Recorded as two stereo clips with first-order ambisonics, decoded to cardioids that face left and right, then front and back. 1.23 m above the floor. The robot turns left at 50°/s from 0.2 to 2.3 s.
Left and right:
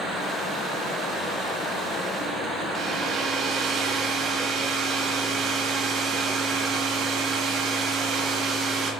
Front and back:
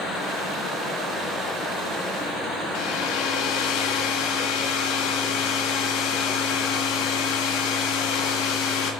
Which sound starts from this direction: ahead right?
A hair dryer, at 2.8 s.